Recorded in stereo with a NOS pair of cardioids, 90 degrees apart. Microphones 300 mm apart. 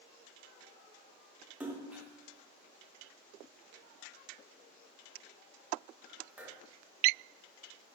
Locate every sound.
1.6 s a splash: 5° right, 0.6 m